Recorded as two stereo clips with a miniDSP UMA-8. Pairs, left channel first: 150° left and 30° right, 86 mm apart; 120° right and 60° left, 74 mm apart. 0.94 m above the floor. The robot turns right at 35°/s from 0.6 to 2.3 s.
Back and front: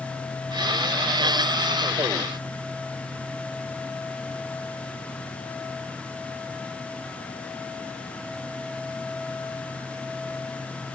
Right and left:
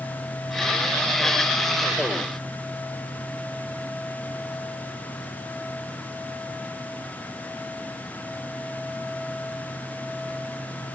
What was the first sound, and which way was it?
Only background noise.